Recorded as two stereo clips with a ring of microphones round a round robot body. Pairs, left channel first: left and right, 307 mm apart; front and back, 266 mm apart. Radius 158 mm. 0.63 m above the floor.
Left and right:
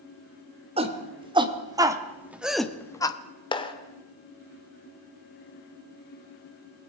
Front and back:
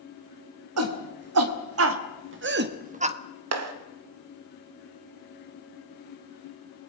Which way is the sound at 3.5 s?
165° left.